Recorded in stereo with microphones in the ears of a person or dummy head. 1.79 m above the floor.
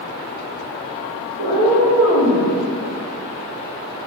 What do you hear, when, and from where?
1.4 s a cat meowing: 45° right (ahead or behind), 1.3 m